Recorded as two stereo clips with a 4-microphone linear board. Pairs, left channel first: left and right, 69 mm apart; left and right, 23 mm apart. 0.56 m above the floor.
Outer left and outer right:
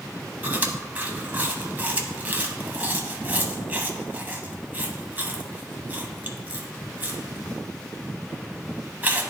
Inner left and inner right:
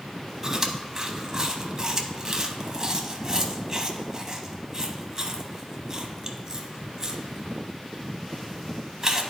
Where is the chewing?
25° right (ahead or behind), 0.8 m.